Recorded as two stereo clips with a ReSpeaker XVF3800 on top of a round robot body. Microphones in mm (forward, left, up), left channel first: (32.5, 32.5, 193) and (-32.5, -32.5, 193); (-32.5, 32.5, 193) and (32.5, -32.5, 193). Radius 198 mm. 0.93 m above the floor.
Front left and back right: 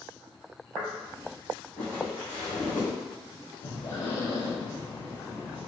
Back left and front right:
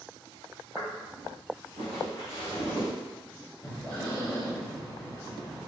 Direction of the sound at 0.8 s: 90° right.